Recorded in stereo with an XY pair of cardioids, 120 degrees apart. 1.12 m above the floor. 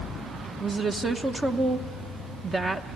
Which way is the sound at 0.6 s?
30° right.